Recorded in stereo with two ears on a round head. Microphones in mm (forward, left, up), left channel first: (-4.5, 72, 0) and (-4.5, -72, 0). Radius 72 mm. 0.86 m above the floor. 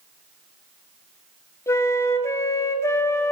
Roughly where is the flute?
Centre.